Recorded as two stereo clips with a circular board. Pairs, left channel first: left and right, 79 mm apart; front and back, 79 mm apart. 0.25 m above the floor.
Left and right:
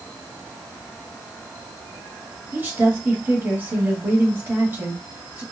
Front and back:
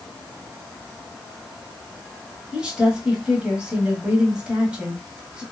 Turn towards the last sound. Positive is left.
turn(degrees=-115)